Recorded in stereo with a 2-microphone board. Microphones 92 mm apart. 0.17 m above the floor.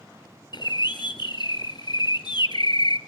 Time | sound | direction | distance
0.5 | a bird | 55° left (ahead or behind) | 1.2 m